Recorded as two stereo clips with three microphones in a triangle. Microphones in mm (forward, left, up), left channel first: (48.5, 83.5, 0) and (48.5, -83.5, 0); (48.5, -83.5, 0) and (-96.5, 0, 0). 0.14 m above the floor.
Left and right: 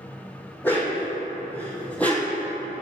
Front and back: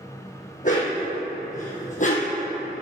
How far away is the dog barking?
About 2.5 m.